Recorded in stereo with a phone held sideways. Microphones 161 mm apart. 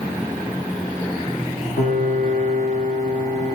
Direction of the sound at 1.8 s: 50° left (ahead or behind).